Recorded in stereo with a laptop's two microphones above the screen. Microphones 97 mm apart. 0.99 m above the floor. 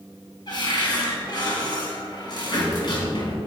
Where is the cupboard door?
45° left (ahead or behind), 3.5 m.